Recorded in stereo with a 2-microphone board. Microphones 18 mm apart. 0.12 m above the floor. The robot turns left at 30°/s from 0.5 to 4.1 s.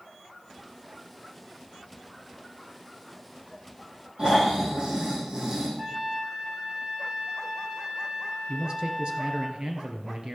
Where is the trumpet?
30° right (ahead or behind), 4 m.